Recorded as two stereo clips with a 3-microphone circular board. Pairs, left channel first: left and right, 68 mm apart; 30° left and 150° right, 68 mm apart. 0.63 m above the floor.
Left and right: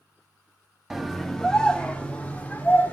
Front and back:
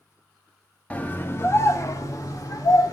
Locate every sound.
0.9 s a scream: 10° right, 0.9 m; by 2.9 s 30° left, 2.0 m